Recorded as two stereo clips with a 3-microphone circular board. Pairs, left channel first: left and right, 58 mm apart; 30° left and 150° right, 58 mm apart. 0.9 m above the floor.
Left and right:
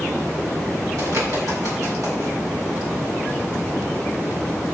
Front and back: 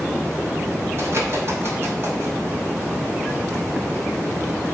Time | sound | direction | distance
1.0 | a bird | 110° right | 6 m